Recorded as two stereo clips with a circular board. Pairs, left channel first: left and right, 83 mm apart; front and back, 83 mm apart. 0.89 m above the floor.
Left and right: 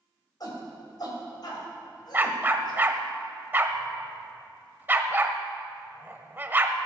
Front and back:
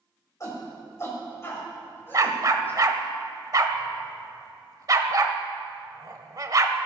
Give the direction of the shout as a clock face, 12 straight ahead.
10 o'clock.